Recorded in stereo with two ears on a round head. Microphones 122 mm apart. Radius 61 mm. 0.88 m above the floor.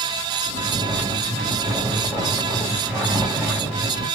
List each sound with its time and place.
0.5 s snoring: 10° right (ahead or behind), 1.9 m